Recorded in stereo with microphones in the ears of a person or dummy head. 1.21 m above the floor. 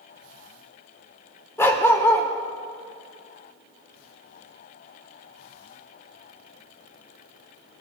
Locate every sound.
1.6 s a dog barking: 20° left (ahead or behind), 1.5 m